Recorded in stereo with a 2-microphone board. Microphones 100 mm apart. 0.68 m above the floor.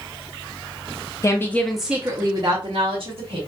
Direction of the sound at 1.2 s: 30° left (ahead or behind).